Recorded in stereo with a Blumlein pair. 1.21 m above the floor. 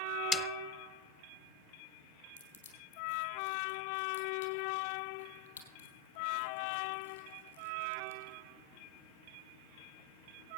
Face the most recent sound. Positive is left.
turn(degrees=70)